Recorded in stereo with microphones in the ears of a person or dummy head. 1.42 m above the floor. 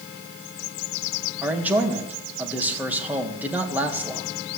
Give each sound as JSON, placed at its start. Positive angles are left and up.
{"t": 1.4, "sound": "a man speaking", "side_deg": -5, "distance_m": 2.0}